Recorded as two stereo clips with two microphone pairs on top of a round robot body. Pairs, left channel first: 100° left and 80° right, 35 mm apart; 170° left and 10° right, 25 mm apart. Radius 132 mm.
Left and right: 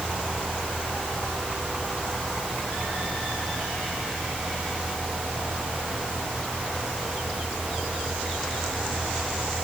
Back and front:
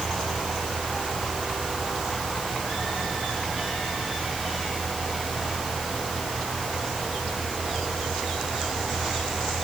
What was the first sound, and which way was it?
Only background noise.